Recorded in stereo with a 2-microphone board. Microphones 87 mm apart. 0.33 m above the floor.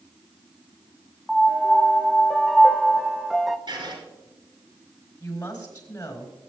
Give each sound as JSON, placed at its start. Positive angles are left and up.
{"t": 1.3, "sound": "a piano", "side_deg": 0, "distance_m": 0.5}
{"t": 3.7, "sound": "writing", "side_deg": -60, "distance_m": 5.0}
{"t": 5.2, "sound": "a woman speaking", "side_deg": 45, "distance_m": 4.0}